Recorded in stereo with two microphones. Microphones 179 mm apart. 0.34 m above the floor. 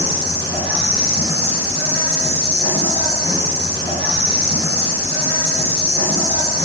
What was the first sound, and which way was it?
An insect, 25° left (ahead or behind).